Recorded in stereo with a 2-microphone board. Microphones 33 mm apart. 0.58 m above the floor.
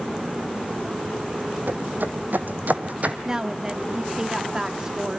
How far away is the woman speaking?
About 1.2 m.